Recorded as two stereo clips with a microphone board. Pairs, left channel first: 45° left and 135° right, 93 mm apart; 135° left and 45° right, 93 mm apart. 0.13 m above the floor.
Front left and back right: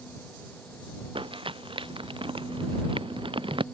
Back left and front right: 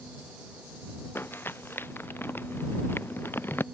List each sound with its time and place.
1.1 s crumpling: 160° right